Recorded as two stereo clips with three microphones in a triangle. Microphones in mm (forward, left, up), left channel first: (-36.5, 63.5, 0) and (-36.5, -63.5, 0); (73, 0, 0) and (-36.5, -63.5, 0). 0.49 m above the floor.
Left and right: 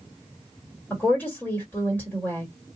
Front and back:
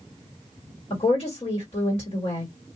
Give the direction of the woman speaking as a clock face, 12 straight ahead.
11 o'clock.